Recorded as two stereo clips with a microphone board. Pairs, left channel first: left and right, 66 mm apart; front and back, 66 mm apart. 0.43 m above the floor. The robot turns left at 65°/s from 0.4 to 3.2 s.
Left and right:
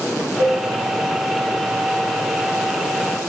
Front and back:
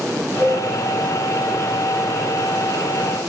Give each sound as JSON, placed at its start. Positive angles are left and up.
{"t": 0.4, "sound": "a cowbell", "azimuth_deg": -45, "distance_m": 1.6}